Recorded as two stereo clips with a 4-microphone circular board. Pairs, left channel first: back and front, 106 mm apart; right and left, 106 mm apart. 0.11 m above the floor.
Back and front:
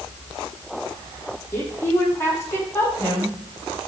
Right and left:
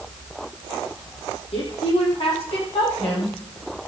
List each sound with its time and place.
1.5 s a woman speaking: 115° right, 5 m